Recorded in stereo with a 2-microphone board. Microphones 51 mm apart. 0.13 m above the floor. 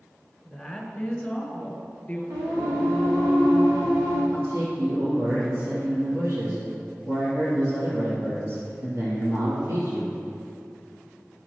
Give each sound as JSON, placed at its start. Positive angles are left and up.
{"t": 0.5, "sound": "a woman speaking", "side_deg": 0, "distance_m": 1.5}
{"t": 2.3, "sound": "singing", "side_deg": -85, "distance_m": 3.0}
{"t": 4.3, "sound": "a man speaking", "side_deg": -55, "distance_m": 3.0}